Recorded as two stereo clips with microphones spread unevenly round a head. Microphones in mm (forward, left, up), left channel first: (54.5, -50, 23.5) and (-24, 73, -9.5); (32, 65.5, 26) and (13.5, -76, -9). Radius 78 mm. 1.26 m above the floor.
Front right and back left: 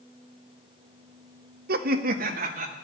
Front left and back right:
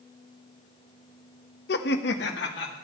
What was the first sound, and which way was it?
Laughter, 100° left.